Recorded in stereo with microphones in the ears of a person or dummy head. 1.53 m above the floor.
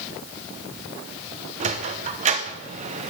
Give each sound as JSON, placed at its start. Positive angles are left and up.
{"t": 1.6, "sound": "a sliding door", "side_deg": -35, "distance_m": 0.9}